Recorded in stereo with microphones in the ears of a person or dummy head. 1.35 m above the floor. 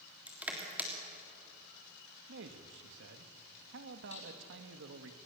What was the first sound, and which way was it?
Crushing, 5° right (ahead or behind).